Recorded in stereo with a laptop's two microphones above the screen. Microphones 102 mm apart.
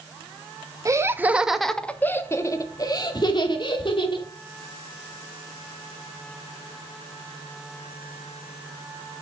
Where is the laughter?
30° right (ahead or behind), 1.2 m; by 4.3 s 55° left (ahead or behind), 3 m.